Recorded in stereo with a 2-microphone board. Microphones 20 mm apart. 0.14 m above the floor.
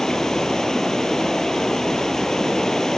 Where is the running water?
30° left (ahead or behind), 2.0 m.